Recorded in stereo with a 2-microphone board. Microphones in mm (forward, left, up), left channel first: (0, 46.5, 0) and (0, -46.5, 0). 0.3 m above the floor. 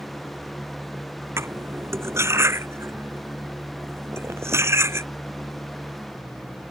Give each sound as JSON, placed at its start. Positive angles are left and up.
{"t": 1.4, "sound": "cutlery clinking", "side_deg": -30}